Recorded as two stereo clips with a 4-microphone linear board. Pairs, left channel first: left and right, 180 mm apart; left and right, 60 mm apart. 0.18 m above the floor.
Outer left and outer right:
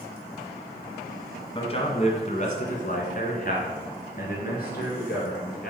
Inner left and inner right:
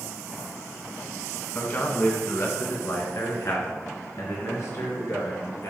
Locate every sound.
1.6 s a man speaking: 30° left (ahead or behind), 1.3 m; by 5.7 s 60° left (ahead or behind), 3 m